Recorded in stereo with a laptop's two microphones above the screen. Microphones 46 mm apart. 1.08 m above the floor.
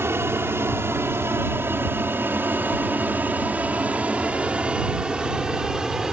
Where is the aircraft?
65° right (ahead or behind); by 6.1 s 10° right (ahead or behind).